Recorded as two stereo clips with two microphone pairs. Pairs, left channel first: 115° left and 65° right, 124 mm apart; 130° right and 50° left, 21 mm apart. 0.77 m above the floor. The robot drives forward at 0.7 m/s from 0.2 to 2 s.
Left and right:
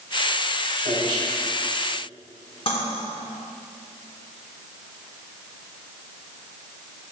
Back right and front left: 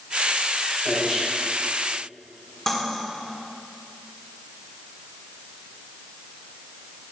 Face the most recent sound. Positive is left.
turn(degrees=160)